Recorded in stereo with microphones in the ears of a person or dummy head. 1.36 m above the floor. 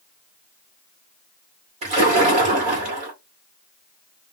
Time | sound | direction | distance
1.8 | a splash | 35° right (ahead or behind) | 1.1 m